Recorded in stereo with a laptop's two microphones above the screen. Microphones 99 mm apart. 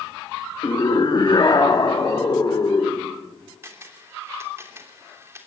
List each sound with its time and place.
0.6 s a scream: 45° left (ahead or behind), 1.3 m; by 3.1 s 40° left (ahead or behind), 4 m
3.6 s a camera shutter: 25° right (ahead or behind), 3 m